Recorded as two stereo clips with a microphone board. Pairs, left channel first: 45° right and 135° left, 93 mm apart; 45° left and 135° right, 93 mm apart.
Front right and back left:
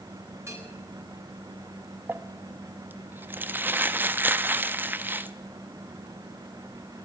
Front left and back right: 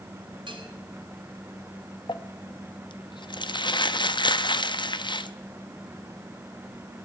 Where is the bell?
165° right, 3.5 m.